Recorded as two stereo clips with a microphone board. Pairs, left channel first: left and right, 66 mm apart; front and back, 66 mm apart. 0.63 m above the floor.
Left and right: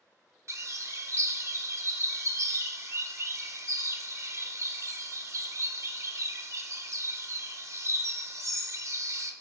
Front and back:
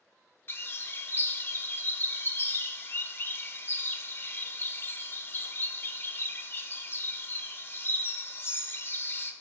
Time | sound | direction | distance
0.5 | a bird | 55° right | 0.6 m